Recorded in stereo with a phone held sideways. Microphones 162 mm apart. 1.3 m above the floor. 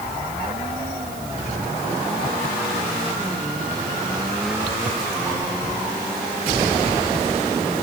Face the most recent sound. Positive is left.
No sound to turn to.